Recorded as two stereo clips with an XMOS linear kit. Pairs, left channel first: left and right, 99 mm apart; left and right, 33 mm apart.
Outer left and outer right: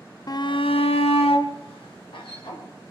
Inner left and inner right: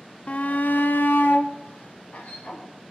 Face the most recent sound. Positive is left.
turn(degrees=55)  # may be behind; listen again after turning